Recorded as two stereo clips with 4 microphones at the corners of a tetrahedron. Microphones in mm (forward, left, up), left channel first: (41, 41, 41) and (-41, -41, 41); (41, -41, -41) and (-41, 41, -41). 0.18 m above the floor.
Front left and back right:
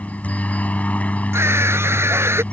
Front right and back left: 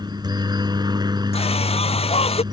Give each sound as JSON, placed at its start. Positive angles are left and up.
{"t": 0.0, "sound": "a helicopter", "azimuth_deg": 115}
{"t": 1.3, "sound": "a scream", "azimuth_deg": -70}